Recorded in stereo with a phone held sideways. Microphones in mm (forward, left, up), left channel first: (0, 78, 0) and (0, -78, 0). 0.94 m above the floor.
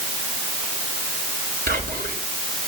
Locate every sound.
1.7 s whispering: 70° right (ahead or behind), 3.5 m